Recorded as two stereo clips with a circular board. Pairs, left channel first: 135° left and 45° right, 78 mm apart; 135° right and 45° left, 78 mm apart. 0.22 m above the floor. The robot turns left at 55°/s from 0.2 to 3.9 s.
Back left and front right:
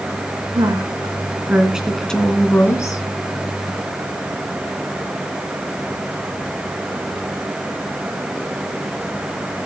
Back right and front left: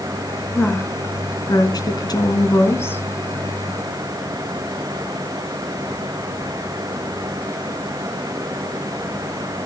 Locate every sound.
0.6 s a woman speaking: 60° right, 1.9 m; by 3.0 s 165° left, 1.9 m